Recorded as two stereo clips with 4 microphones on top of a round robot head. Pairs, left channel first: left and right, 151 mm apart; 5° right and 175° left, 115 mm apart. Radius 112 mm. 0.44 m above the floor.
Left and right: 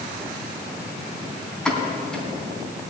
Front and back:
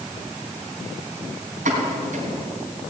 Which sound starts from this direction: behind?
A pop, at 1.6 s.